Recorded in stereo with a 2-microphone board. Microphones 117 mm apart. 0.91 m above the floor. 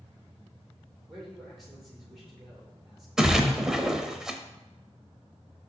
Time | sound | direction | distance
1.1 | a man speaking | centre (ahead or behind) | 3 m
3.2 | a splash | 5° right (ahead or behind) | 0.7 m